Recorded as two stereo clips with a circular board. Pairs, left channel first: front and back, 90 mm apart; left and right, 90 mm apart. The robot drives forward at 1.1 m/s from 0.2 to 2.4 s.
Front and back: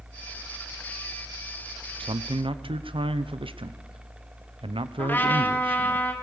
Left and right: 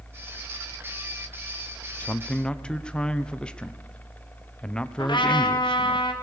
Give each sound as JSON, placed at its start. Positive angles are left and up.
{"t": 2.0, "sound": "a man speaking", "azimuth_deg": 160, "distance_m": 0.5}
{"t": 5.0, "sound": "a trumpet", "azimuth_deg": 70, "distance_m": 3.0}